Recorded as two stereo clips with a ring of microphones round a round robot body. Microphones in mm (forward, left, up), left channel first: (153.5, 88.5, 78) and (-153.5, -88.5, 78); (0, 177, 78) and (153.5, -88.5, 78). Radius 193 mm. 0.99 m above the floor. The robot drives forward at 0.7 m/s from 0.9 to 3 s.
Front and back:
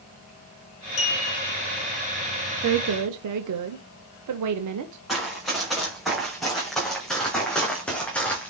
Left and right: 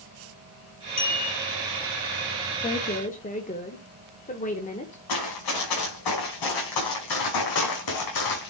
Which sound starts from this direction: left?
A clink, at 1.0 s.